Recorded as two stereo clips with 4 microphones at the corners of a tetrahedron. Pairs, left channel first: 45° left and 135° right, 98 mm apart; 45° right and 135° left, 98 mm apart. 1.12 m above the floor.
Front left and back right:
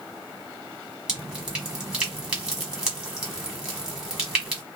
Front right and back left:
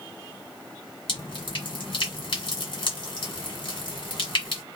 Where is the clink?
No clink in this recording.